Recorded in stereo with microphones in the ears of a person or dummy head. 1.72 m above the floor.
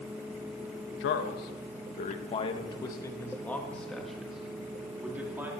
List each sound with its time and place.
1.0 s a man speaking: 60° left (ahead or behind), 1.7 m; by 5.5 s 10° right (ahead or behind), 3 m